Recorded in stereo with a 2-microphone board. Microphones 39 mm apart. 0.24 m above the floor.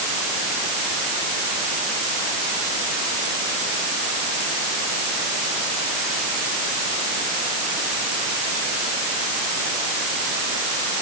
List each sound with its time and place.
Only background noise.